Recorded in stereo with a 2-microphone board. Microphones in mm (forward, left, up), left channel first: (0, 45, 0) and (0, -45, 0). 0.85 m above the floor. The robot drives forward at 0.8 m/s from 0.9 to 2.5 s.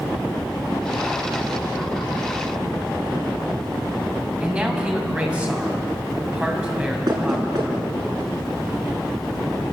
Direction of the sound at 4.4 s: 15° right (ahead or behind).